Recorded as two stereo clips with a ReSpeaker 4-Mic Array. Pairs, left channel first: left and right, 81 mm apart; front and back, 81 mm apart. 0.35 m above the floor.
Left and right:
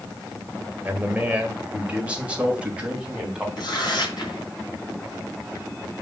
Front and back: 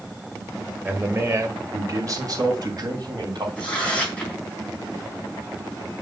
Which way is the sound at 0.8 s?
140° right.